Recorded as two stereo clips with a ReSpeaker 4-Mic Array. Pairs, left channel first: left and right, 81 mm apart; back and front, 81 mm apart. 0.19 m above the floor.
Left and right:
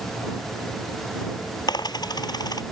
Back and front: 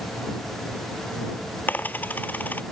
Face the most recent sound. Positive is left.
turn(degrees=115)